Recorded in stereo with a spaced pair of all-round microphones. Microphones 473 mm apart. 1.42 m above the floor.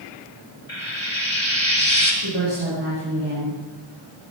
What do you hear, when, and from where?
0.7 s frying: 75° left (ahead or behind), 5 m
2.2 s a woman speaking: 60° right (ahead or behind), 6.5 m